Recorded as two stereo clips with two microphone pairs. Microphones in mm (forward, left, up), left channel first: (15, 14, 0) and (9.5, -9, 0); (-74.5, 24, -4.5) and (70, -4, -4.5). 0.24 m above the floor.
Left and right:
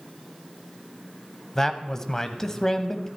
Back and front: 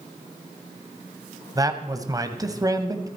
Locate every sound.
1.6 s a man speaking: 25° left, 1.2 m